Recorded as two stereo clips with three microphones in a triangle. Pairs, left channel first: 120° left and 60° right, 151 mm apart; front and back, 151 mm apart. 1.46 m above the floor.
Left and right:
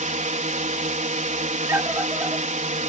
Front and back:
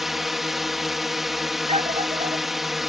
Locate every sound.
0.0 s a drone: 90° right
1.7 s a scream: 135° right